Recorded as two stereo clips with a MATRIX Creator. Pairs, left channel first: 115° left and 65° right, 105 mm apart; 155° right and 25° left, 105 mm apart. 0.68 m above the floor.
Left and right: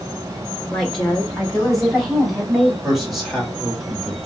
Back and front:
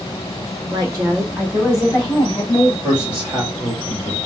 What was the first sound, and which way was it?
A woman speaking, 25° left.